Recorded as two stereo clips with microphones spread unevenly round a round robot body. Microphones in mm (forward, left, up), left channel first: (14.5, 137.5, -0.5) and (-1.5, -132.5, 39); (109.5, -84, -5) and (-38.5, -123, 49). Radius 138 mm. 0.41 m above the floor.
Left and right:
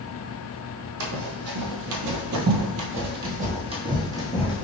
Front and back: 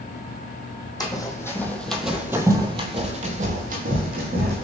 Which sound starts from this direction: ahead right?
Running footsteps, at 1.0 s.